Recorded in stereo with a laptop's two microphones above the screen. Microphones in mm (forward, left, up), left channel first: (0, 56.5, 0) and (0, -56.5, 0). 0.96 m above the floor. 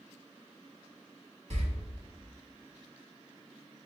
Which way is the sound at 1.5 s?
65° right (ahead or behind).